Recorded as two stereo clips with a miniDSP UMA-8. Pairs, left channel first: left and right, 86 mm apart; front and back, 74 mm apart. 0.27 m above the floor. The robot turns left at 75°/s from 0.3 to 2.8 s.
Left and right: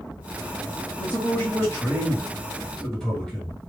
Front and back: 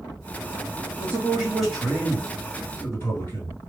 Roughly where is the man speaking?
Behind left.